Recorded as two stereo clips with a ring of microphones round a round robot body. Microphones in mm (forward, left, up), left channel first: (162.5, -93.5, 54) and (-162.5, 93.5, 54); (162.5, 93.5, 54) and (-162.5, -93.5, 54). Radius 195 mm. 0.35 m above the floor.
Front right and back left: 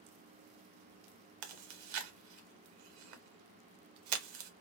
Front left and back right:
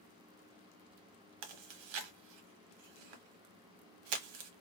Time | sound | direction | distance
1.4 | chewing | 175° right | 0.8 m